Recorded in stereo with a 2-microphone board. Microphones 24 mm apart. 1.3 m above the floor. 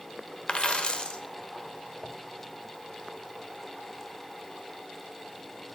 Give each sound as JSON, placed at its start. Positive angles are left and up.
{"t": 0.5, "sound": "a dropped coin", "side_deg": 40, "distance_m": 1.3}